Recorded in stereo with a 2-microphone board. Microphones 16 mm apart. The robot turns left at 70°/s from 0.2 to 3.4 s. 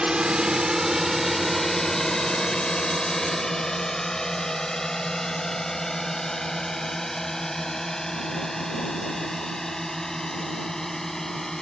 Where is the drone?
80° right; by 11.6 s 35° left (ahead or behind).